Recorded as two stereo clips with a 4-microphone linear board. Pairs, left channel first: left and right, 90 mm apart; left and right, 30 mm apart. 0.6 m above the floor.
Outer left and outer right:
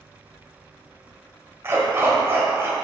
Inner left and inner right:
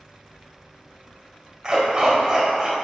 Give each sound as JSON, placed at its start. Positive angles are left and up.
{"t": 1.6, "sound": "a dog barking", "side_deg": -30, "distance_m": 1.2}